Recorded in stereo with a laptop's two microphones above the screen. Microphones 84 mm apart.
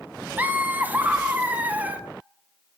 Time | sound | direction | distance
0.4 | laughter | 20° right (ahead or behind) | 0.5 m